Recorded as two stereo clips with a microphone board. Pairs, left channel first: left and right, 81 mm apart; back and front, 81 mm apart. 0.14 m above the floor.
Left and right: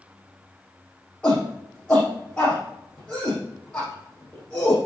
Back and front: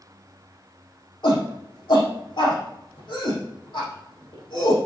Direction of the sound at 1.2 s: 160° left.